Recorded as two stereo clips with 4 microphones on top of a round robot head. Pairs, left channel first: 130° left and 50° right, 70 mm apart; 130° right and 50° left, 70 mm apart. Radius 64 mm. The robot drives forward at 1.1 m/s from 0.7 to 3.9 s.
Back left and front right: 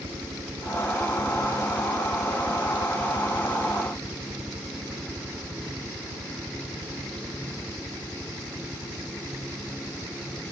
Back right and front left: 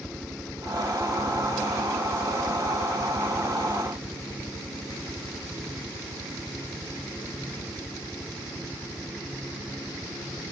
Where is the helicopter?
35° right; by 10.5 s 15° right.